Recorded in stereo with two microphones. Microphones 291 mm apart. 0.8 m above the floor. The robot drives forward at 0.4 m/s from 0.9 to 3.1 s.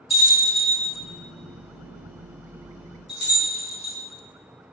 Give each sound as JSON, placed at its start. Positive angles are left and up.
{"t": 0.1, "sound": "a bell", "side_deg": 60, "distance_m": 1.0}